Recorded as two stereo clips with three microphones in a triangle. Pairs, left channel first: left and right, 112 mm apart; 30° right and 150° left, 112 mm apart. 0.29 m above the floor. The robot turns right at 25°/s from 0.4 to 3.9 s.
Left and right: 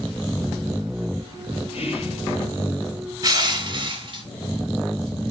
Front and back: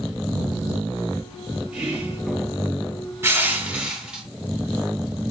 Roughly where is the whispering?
Left.